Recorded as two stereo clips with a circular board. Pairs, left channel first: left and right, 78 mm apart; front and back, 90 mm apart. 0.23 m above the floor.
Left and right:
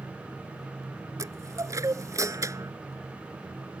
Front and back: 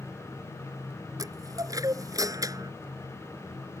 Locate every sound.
1.2 s a chime: 135° right